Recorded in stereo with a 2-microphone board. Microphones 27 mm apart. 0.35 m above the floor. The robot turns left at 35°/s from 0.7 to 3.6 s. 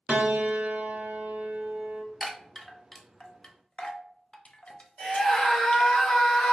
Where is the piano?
85° right, 0.5 m; by 2.0 s 135° right, 0.5 m.